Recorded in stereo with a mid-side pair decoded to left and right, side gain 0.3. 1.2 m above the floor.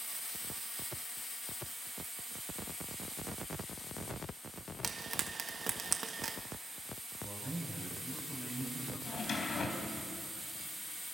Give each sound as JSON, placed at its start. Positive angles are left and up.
{"t": 4.8, "sound": "frying", "azimuth_deg": -50, "distance_m": 1.7}
{"t": 7.2, "sound": "a man speaking", "azimuth_deg": -25, "distance_m": 9.5}
{"t": 9.1, "sound": "a drawer", "azimuth_deg": 60, "distance_m": 3.0}